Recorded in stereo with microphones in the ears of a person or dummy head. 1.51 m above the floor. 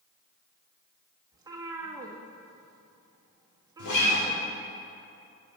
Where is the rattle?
No rattle in this recording.